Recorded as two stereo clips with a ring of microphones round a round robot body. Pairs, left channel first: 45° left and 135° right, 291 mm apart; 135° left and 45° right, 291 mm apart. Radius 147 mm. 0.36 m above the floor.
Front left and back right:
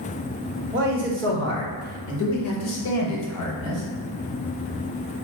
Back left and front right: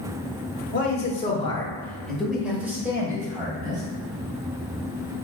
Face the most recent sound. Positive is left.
turn(degrees=30)